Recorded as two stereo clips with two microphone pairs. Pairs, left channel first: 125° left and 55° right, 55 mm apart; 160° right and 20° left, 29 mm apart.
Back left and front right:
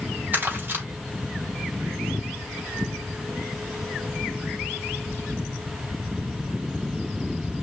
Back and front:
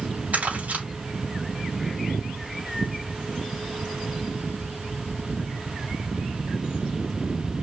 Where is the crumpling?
Straight ahead, 3 m.